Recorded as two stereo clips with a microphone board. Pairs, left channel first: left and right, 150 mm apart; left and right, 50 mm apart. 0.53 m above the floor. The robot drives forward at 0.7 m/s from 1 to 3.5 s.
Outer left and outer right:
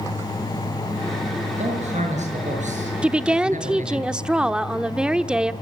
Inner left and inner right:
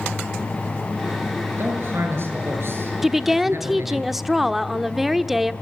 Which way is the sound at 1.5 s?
50° right (ahead or behind).